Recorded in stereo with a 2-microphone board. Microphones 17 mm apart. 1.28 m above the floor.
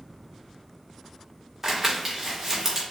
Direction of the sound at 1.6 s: 30° right (ahead or behind).